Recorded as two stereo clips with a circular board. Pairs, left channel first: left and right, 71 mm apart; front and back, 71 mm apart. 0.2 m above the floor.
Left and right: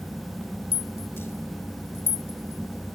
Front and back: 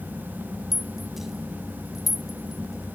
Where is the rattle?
95° left.